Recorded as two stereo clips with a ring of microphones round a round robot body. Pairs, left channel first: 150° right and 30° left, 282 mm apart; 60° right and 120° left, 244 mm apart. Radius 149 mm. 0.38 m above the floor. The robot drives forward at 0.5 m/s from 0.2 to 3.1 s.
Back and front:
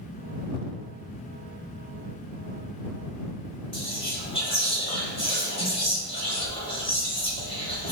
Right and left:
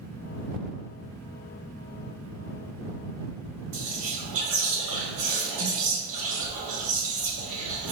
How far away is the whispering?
About 2.5 m.